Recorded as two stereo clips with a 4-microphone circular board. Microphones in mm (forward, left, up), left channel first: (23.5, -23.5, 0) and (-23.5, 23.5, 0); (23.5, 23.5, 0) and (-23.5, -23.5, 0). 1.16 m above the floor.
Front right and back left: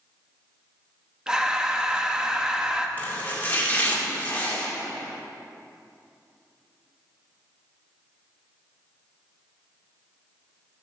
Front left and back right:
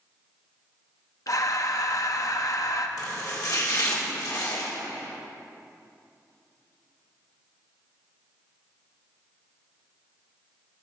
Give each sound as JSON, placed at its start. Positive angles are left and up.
{"t": 1.3, "sound": "breathing", "azimuth_deg": 60, "distance_m": 0.7}
{"t": 3.0, "sound": "chopping", "azimuth_deg": 20, "distance_m": 1.9}